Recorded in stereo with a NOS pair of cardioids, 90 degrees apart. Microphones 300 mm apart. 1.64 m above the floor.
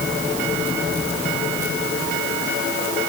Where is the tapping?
No tapping in this recording.